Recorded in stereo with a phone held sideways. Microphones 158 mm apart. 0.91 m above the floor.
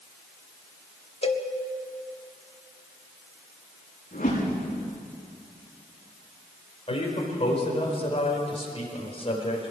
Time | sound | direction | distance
1.2 | a cowbell | 40° left (ahead or behind) | 1.3 m
4.1 | a whoosh | 55° left (ahead or behind) | 9 m
6.9 | a man speaking | 40° left (ahead or behind) | 4 m